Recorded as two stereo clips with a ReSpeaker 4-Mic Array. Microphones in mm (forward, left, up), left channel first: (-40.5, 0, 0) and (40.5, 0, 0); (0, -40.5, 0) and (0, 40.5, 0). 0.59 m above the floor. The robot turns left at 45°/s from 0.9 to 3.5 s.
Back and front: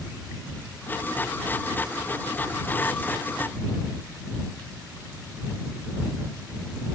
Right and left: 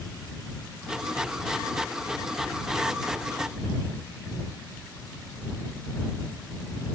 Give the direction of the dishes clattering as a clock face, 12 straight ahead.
No dishes clattering in this recording.